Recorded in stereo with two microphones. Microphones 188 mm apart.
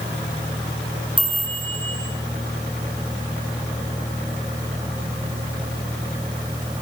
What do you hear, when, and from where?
1.2 s a chime: 25° right (ahead or behind), 6 m